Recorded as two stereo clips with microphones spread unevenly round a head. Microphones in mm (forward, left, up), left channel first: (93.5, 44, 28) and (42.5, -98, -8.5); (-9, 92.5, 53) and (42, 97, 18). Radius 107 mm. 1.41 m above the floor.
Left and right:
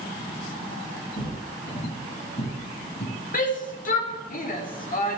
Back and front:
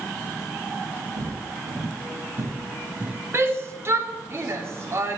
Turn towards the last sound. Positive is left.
turn(degrees=45)